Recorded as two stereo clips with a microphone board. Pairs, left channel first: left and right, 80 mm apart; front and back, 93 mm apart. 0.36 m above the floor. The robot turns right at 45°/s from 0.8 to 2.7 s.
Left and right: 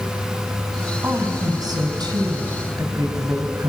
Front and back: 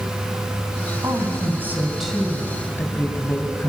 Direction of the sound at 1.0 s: 140° right.